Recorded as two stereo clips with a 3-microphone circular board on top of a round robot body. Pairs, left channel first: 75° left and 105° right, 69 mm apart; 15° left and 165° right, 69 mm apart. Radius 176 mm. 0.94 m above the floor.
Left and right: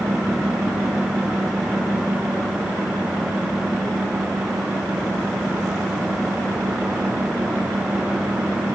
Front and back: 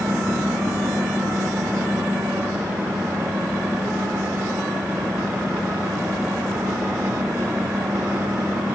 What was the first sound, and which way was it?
Only background noise.